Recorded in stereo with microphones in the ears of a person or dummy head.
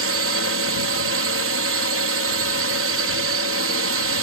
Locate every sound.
0.0 s a drone: 70° right (ahead or behind)